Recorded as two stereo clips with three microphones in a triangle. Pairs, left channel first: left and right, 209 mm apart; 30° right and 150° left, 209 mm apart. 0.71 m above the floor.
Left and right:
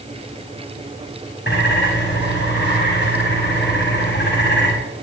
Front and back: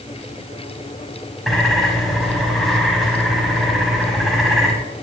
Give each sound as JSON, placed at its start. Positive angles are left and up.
{"t": 1.5, "sound": "a bird", "azimuth_deg": 60, "distance_m": 5.0}